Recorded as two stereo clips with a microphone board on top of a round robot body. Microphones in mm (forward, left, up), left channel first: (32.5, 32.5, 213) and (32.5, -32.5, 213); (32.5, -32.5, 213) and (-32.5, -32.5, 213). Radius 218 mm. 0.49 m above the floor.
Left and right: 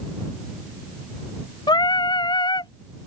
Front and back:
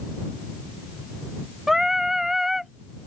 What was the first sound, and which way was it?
Singing, 95° left.